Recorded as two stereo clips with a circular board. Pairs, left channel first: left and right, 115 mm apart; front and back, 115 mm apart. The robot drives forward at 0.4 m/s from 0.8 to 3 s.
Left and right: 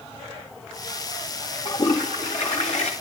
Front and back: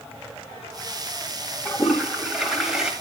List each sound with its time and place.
1.6 s a toilet flushing: 90° left, 4 m; by 2.9 s 95° left, 4 m